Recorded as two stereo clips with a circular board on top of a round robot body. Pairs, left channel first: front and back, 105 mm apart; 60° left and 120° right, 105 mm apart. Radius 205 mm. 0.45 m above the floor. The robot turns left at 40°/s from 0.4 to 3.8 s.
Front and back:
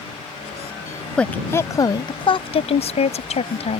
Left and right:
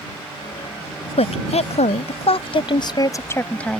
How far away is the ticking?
I don't hear ticking.